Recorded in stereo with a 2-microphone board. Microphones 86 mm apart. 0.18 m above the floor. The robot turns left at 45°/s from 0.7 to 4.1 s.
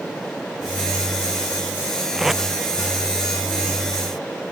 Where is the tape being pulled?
10° right (ahead or behind); by 2.4 s 5° left (ahead or behind).